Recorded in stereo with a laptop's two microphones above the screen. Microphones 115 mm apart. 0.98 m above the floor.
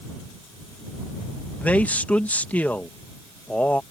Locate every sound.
1.6 s a man speaking: 15° left (ahead or behind)